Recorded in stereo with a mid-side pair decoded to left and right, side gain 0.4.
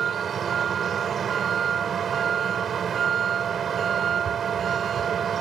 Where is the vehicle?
60° right.